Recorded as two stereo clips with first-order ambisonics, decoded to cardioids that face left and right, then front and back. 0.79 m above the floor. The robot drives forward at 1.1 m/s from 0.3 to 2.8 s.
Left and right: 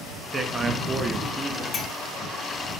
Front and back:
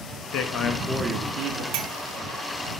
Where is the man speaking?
15° right, 0.8 m; by 1.6 s 165° right, 1.0 m.